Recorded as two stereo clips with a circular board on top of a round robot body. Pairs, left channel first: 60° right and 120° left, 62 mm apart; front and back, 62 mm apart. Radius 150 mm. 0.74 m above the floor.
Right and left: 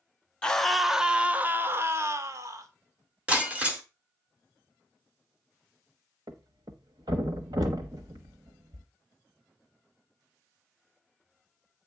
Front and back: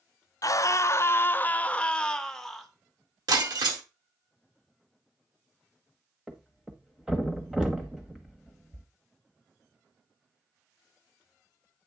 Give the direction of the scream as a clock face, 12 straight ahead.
12 o'clock.